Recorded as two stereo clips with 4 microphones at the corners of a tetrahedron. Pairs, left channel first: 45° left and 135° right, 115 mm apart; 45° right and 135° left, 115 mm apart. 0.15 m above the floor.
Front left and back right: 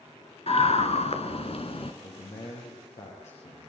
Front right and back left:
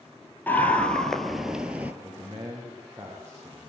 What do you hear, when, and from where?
0.5 s a scream: 30° left, 2.5 m; by 1.9 s 65° left, 2.5 m
2.0 s a man speaking: 60° left, 7.5 m